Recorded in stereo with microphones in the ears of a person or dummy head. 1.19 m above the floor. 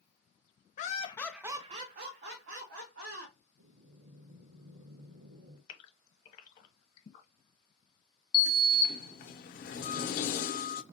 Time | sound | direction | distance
0.8 | laughter | 40° left (ahead or behind) | 0.7 m
3.6 | breathing | 70° right (ahead or behind) | 1.1 m
5.7 | a gasp | 40° left (ahead or behind) | 1.1 m
8.3 | a sliding door | 50° left (ahead or behind) | 0.7 m